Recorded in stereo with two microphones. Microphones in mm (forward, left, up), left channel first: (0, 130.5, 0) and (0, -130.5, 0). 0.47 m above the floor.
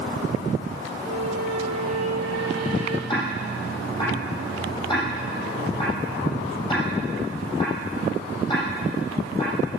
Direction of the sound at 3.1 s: 15° left (ahead or behind).